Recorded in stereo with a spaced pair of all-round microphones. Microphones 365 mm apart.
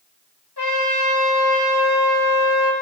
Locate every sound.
0.6 s a trumpet: 85° left, 1.2 m